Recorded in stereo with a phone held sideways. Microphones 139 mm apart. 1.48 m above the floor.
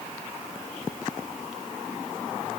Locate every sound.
Only background noise.